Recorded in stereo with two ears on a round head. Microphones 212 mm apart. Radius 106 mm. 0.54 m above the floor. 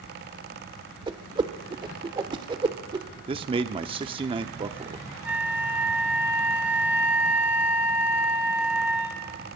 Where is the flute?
5° right (ahead or behind), 1.6 m.